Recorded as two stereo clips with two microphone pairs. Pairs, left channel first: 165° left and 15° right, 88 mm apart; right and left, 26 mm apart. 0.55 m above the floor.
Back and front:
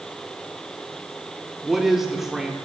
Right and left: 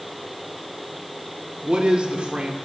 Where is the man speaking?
70° left, 1.6 m.